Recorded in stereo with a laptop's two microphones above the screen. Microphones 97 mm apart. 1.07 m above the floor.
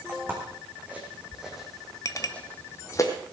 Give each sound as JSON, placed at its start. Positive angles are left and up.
{"t": 0.1, "sound": "footsteps", "side_deg": -25, "distance_m": 5.0}
{"t": 2.0, "sound": "a clink", "side_deg": 35, "distance_m": 1.1}